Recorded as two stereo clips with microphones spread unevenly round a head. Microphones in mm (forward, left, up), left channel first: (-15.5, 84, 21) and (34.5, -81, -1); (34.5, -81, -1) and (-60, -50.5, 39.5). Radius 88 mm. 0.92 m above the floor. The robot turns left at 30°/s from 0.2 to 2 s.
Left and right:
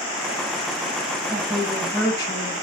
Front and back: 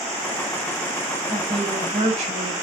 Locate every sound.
1.3 s a woman speaking: 165° right, 5 m; by 2.5 s 175° left, 5 m